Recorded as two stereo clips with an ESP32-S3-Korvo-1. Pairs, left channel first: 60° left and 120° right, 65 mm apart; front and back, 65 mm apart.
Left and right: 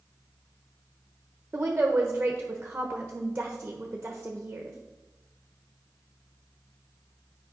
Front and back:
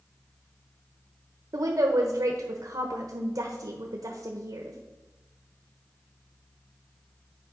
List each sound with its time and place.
1.5 s a woman speaking: 170° left, 1.0 m